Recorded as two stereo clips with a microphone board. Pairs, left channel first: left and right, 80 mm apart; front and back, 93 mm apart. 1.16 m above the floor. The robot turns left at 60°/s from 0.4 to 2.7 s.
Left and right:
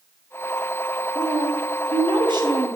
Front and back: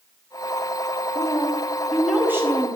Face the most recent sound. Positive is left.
turn(degrees=-135)